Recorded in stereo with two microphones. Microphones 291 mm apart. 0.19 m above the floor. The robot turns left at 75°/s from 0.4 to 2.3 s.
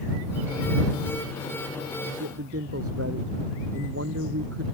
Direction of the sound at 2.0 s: 70° right (ahead or behind).